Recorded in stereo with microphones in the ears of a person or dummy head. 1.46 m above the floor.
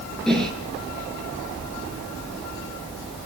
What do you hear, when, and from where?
0.3 s a whoosh: 5° left (ahead or behind), 9.5 m